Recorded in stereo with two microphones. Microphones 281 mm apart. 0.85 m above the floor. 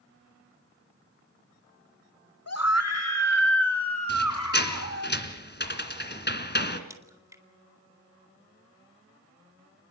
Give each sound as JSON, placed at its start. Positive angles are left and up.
{"t": 2.5, "sound": "a scream", "side_deg": 60, "distance_m": 2.0}
{"t": 4.1, "sound": "a squeak", "side_deg": 40, "distance_m": 2.0}
{"t": 6.9, "sound": "a crack", "side_deg": -10, "distance_m": 2.5}